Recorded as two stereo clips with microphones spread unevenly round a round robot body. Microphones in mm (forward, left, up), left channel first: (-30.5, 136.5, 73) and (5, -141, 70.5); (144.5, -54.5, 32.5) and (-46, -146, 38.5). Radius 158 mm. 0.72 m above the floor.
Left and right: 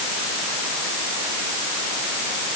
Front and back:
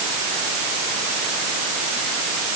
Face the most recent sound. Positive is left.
No sound to turn to.